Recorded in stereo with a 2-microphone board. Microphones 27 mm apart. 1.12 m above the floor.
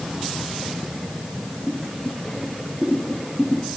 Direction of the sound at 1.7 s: 35° left (ahead or behind).